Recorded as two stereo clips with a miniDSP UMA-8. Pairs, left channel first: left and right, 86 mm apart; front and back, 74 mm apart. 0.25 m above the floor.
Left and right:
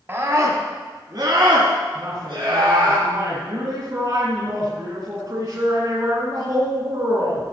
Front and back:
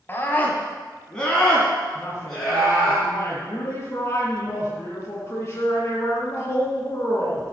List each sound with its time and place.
0.1 s a scream: 40° right, 1.5 m; by 3.0 s 95° right, 4 m
1.9 s a woman speaking: 55° right, 3 m